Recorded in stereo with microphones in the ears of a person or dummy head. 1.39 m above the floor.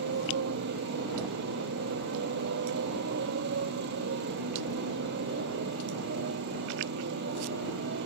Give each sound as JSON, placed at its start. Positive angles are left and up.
{"t": 0.0, "sound": "a motorcycle", "side_deg": -60}